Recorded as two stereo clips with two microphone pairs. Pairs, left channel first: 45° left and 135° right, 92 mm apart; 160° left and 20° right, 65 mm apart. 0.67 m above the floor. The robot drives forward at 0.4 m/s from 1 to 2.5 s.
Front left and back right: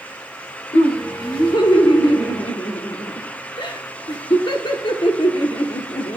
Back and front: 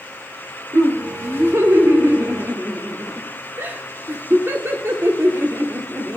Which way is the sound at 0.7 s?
20° left.